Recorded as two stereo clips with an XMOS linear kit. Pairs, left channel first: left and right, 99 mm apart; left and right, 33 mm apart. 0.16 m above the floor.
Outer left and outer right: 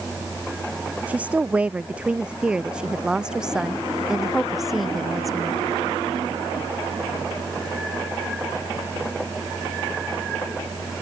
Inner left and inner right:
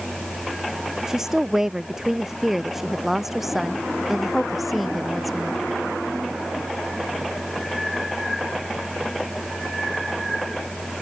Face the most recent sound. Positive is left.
turn(degrees=0)  # may be behind; listen again after turning